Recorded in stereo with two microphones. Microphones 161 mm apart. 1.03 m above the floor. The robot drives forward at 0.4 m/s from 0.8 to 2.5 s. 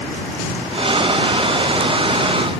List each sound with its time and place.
Only background noise.